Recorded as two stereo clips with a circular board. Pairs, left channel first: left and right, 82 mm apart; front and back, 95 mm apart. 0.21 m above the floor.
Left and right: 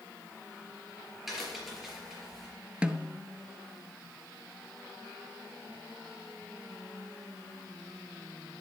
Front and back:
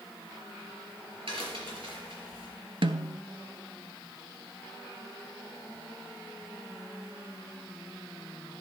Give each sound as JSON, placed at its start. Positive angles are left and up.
{"t": 1.3, "sound": "a crack", "azimuth_deg": -175, "distance_m": 4.5}
{"t": 2.8, "sound": "a snare drum", "azimuth_deg": -165, "distance_m": 0.6}